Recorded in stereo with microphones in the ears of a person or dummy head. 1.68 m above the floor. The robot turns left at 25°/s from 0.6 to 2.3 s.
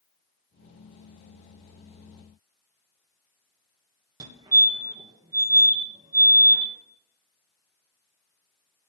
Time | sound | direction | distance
4.2 | a fire alarm | 25° right (ahead or behind) | 3 m